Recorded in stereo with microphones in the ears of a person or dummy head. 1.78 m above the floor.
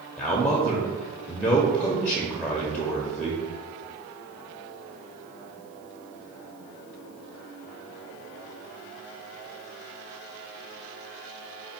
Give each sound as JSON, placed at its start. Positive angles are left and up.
{"t": 0.2, "sound": "a man speaking", "side_deg": 5, "distance_m": 0.6}